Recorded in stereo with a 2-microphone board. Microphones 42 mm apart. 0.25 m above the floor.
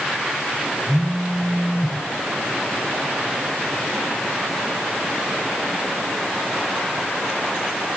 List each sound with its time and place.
0.9 s a phone buzzing: 65° left (ahead or behind), 7.5 m